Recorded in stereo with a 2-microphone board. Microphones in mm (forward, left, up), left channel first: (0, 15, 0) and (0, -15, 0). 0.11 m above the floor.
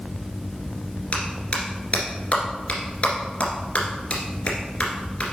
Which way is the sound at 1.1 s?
40° left (ahead or behind).